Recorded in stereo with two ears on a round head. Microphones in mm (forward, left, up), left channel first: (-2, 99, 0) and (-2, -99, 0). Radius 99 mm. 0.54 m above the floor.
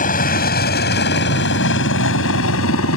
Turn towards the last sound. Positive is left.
turn(degrees=70)  # may be behind; listen again after turning